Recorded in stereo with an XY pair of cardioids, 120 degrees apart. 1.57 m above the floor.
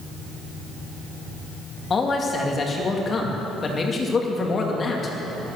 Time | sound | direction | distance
1.9 | a man speaking | 35° left | 2.5 m